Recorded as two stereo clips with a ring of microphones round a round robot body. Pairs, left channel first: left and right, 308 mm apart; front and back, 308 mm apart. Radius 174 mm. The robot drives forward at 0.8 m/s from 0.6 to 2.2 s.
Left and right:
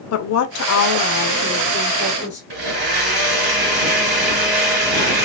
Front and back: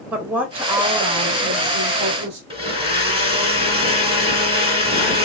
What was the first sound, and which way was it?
A woman speaking, 95° left.